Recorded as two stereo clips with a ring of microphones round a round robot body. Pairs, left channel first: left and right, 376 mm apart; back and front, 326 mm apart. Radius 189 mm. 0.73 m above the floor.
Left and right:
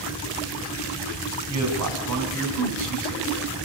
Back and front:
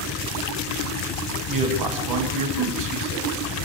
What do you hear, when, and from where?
1.5 s a man speaking: 40° right, 5 m; by 3.3 s 45° right, 6 m